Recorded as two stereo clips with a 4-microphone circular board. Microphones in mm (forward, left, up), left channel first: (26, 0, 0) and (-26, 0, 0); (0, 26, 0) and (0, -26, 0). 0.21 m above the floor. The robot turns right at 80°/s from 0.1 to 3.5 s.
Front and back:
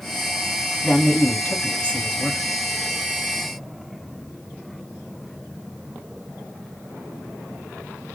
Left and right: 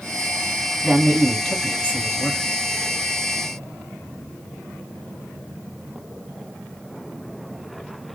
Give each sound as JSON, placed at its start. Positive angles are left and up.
{"t": 0.8, "sound": "a man speaking", "azimuth_deg": -35, "distance_m": 1.3}